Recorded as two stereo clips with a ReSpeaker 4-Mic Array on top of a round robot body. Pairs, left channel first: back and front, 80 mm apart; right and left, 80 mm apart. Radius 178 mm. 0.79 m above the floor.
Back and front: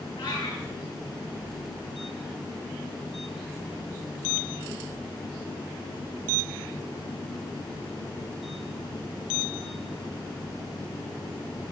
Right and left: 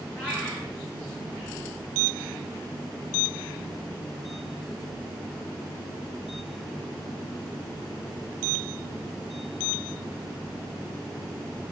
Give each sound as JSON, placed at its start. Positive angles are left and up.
{"t": 0.2, "sound": "a cat meowing", "azimuth_deg": -165, "distance_m": 8.0}